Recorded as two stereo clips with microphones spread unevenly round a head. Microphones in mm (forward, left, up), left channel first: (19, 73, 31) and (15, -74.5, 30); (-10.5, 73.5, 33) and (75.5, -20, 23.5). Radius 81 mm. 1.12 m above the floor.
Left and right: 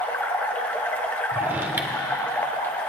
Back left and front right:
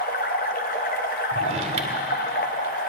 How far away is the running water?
About 0.8 m.